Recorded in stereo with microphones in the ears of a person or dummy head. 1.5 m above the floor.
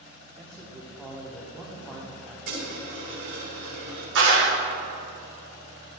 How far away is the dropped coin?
About 2 m.